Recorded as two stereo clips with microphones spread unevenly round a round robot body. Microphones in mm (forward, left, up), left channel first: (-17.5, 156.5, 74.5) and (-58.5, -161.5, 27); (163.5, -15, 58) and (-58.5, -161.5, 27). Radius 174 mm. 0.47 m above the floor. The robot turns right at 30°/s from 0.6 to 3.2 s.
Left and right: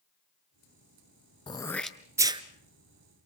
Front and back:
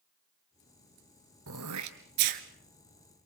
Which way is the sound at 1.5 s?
155° left.